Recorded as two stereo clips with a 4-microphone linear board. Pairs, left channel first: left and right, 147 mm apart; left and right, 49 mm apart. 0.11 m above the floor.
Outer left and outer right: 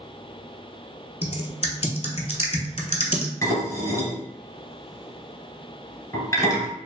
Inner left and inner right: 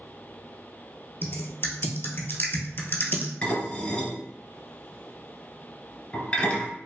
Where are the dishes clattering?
25° left (ahead or behind), 1.2 m.